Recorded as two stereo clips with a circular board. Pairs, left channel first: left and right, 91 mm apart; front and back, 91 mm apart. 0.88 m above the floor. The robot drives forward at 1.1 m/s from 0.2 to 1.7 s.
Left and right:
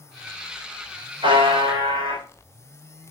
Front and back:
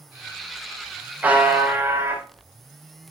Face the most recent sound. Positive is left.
turn(degrees=-115)